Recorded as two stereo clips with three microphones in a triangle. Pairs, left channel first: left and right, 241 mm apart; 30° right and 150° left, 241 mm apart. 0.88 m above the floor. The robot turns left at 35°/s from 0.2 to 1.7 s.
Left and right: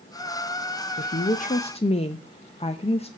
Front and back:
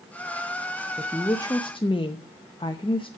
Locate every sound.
1.0 s a woman speaking: 55° left, 0.6 m; by 3.1 s 30° left, 0.6 m